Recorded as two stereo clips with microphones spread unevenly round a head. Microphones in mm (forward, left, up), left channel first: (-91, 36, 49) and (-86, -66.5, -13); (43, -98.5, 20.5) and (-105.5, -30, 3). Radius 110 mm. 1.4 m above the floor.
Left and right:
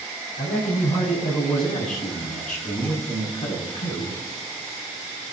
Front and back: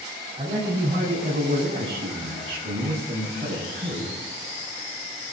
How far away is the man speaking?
About 7.5 m.